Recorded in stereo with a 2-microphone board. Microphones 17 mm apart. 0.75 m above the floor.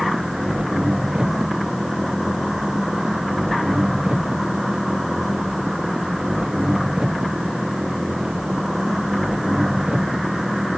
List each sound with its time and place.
0.0 s an engine running: 60° right (ahead or behind)